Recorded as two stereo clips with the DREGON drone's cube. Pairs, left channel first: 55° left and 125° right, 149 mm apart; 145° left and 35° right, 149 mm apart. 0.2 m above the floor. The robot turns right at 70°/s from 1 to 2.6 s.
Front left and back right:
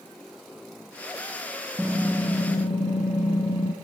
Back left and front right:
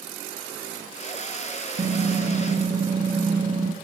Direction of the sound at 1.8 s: 50° right.